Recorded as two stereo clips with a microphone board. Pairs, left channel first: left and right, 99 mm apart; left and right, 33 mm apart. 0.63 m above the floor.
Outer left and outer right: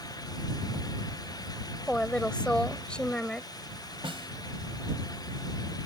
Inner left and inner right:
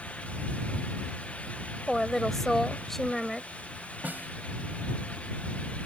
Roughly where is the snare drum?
Right.